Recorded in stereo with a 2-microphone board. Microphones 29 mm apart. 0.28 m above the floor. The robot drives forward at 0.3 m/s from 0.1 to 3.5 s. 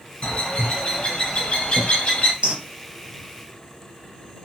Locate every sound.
0.2 s a bird: 35° left (ahead or behind), 1.0 m
2.4 s a bird: 45° right (ahead or behind), 0.6 m